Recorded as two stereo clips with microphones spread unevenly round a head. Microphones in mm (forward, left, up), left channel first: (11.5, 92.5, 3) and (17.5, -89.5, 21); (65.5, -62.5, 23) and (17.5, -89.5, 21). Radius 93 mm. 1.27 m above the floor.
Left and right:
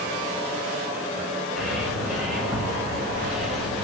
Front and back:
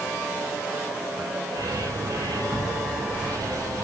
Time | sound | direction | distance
1.6 | a bird | 175° right | 4.5 m